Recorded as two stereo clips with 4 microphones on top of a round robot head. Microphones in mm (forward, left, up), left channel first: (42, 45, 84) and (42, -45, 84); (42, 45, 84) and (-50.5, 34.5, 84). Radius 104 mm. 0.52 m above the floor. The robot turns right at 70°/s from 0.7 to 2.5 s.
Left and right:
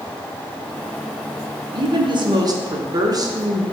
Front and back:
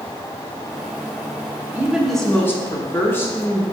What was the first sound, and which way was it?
A woman speaking, 110° right.